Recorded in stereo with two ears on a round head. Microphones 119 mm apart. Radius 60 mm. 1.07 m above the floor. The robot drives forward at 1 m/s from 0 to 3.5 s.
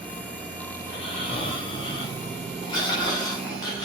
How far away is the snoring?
About 4.5 m.